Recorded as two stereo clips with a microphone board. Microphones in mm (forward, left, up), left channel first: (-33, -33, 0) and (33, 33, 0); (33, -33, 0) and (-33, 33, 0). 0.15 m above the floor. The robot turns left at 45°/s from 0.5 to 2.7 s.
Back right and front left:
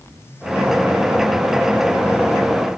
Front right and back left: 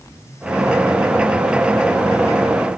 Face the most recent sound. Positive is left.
No sound to turn to.